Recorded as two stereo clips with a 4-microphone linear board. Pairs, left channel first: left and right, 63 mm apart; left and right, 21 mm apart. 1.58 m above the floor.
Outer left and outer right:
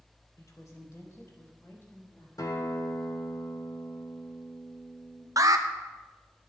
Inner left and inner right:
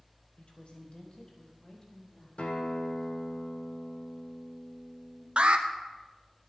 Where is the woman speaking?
60° left (ahead or behind), 2.5 m; by 2.3 s 40° left (ahead or behind), 4 m.